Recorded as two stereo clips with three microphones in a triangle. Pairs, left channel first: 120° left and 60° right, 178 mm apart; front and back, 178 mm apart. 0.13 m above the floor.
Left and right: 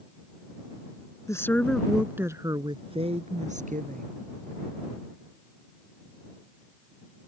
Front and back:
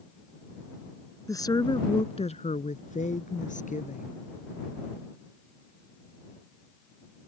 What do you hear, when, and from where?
1.3 s a woman speaking: 60° left; by 4.1 s 35° right